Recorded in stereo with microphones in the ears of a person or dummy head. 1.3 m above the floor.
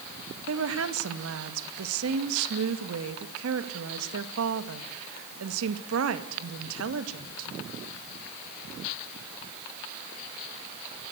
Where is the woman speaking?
80° right, 1.9 m.